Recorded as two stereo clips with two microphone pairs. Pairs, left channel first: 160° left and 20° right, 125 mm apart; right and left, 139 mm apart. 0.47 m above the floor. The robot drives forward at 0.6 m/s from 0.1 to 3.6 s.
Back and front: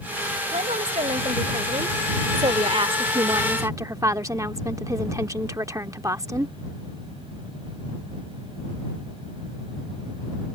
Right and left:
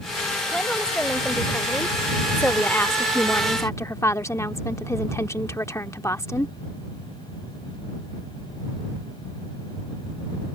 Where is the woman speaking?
10° right; by 6.5 s 45° right.